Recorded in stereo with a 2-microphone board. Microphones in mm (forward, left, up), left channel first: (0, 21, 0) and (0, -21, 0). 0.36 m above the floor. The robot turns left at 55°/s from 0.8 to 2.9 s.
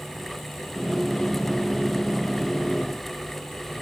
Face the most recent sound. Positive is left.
No sound to turn to.